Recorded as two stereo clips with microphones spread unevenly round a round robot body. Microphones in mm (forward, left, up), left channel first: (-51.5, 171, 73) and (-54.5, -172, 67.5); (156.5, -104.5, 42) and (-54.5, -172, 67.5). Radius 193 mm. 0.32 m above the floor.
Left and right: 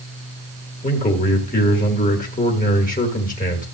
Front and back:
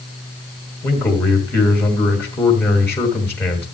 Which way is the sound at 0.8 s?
65° left.